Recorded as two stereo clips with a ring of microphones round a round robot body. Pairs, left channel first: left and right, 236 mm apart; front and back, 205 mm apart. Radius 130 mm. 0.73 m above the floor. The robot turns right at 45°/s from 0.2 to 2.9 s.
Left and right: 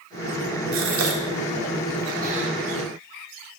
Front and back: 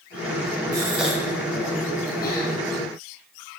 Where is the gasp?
110° right, 1.1 m; by 2.5 s 30° right, 1.1 m.